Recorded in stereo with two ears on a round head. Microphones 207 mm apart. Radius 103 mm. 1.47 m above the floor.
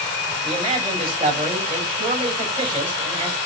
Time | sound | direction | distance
0.4 | a man speaking | 25° right (ahead or behind) | 6 m